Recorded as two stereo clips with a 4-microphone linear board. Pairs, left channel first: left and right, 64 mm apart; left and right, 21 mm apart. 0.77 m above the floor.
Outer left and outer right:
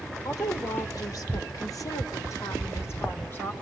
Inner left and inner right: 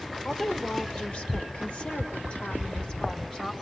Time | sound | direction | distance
0.2 | a woman speaking | 65° left (ahead or behind) | 3 m